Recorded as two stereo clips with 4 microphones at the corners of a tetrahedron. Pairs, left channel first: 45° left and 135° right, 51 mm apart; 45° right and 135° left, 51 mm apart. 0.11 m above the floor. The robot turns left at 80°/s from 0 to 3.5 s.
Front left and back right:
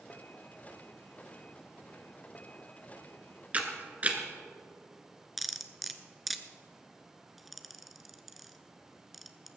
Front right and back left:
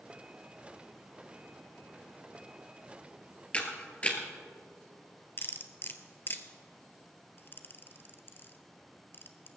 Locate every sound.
3.5 s a camera shutter: 95° right, 1.7 m
5.4 s cutlery clinking: 45° right, 0.9 m